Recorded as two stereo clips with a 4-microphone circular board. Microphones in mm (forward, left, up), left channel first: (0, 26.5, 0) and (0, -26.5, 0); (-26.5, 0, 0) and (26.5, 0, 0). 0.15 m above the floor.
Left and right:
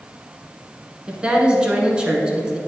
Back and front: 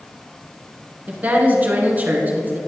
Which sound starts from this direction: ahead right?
A woman speaking, at 1.1 s.